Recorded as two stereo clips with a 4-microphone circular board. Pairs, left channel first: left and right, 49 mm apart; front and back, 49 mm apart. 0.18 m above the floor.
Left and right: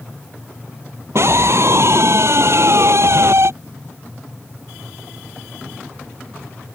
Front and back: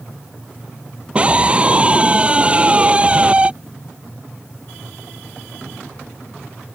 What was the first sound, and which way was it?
A scream, 115° right.